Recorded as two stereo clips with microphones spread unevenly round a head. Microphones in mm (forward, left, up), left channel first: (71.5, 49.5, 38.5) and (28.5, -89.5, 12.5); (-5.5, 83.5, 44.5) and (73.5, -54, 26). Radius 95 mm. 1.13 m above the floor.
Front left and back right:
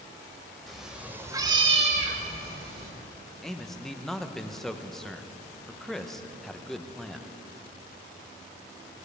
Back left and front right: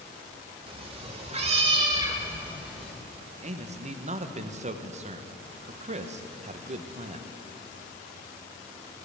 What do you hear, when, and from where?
0.7 s a cat meowing: 5° right, 1.3 m; by 2.9 s 155° right, 1.6 m
3.4 s a man speaking: 15° right, 0.8 m